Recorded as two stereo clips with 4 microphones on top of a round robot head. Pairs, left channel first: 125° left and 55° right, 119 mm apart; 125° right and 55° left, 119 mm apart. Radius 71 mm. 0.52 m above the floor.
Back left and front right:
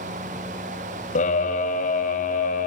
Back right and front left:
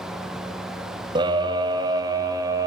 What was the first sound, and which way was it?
A scream, 110° left.